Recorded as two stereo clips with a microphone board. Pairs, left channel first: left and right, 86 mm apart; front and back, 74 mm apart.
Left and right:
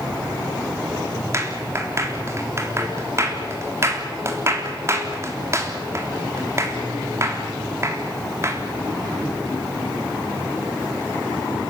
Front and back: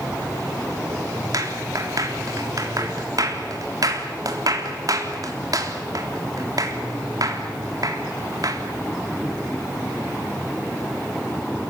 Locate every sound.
1.3 s a clap: 145° right, 3.5 m